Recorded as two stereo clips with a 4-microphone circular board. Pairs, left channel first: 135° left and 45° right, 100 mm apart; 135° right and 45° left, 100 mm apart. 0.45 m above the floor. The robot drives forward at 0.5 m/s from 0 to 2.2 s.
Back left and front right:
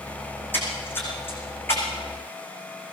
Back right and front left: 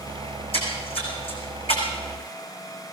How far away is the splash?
About 6 m.